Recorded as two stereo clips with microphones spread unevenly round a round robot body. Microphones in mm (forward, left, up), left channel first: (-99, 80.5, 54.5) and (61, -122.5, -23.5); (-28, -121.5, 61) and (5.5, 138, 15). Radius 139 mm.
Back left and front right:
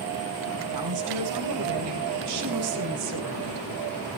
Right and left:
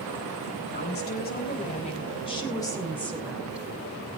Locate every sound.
0.7 s a woman speaking: 45° right, 4.5 m; by 3.8 s straight ahead, 3.5 m